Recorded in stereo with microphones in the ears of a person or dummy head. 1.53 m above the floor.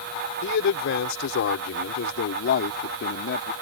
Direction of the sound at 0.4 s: 65° left (ahead or behind).